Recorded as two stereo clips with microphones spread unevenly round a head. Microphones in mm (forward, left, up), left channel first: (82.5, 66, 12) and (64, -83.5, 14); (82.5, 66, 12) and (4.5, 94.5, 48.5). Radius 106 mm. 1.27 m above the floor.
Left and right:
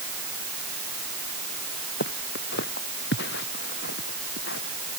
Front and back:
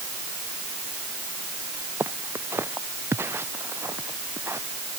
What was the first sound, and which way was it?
Footsteps, 100° left.